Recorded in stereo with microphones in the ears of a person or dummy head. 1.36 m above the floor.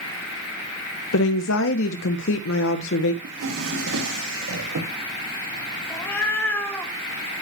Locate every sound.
1.1 s a woman speaking: 75° left (ahead or behind), 0.8 m
3.2 s a drawer: 65° right (ahead or behind), 1.2 m
5.9 s a cat meowing: 10° left (ahead or behind), 1.9 m